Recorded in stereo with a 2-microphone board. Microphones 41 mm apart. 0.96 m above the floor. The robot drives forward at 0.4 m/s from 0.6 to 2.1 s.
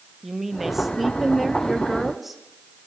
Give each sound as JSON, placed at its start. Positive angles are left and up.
{"t": 0.2, "sound": "a woman speaking", "side_deg": -5, "distance_m": 1.4}